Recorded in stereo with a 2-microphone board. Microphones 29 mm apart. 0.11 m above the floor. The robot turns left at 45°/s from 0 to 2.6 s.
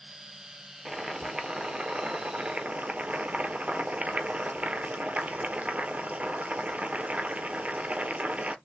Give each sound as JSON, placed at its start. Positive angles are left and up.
{"t": 0.8, "sound": "boiling", "azimuth_deg": -10, "distance_m": 0.8}